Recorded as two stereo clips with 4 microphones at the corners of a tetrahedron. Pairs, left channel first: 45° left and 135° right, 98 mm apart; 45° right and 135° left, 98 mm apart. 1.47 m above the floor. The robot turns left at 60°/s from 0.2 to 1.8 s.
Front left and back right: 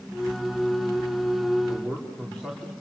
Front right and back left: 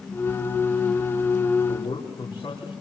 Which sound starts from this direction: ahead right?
A man speaking, at 1.7 s.